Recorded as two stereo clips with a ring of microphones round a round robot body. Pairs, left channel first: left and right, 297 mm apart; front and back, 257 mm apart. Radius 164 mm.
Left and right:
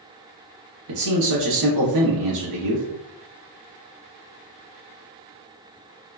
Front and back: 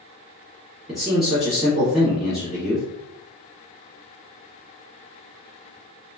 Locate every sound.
0.9 s a man speaking: 90° right, 1.2 m